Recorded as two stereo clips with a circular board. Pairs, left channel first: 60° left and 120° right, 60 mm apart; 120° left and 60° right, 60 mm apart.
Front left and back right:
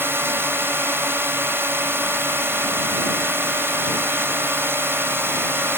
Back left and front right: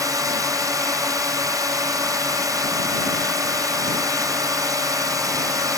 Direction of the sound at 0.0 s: 70° right.